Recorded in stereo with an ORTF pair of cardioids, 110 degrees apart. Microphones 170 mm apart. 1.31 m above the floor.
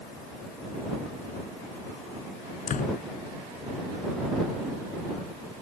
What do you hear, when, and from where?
2.7 s a door slam: 45° left